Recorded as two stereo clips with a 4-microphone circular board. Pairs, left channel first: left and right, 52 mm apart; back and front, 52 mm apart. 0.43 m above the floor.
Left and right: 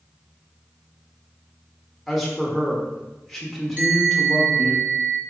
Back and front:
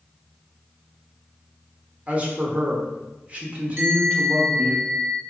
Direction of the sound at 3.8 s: 45° right.